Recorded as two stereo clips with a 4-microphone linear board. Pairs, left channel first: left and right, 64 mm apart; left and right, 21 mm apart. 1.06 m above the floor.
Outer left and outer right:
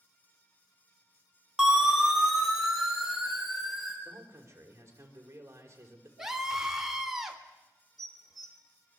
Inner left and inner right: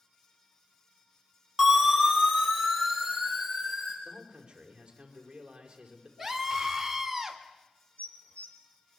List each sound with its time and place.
1.6 s a siren: 10° right (ahead or behind), 5 m; by 4.0 s 5° right (ahead or behind), 6 m
4.0 s a man speaking: 40° right (ahead or behind), 5 m
6.2 s a scream: 10° right (ahead or behind), 3.5 m
8.0 s dishes clattering: 80° left, 2.5 m